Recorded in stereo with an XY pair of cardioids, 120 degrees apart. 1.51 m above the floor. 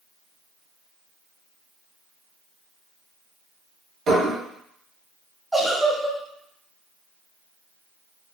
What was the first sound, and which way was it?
Dishes clattering, 55° right.